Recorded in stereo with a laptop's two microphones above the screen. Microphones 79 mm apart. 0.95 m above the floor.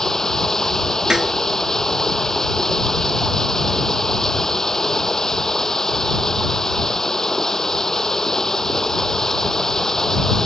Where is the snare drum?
5° right (ahead or behind).